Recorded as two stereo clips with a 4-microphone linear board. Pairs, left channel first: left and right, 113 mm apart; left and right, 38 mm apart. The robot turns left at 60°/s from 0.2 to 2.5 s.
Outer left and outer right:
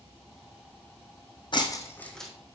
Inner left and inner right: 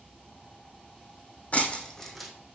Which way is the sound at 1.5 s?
45° left (ahead or behind).